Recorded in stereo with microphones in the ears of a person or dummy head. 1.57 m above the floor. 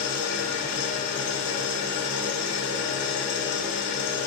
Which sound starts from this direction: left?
An engine running, at 0.0 s.